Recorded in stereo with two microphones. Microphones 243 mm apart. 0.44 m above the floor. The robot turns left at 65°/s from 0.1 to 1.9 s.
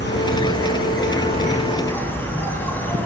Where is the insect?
125° left, 2.5 m; by 3.1 s 10° left, 2.5 m.